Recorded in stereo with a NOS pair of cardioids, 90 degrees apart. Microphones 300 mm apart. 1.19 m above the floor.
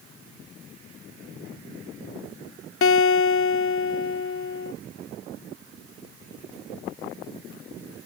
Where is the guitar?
45° left.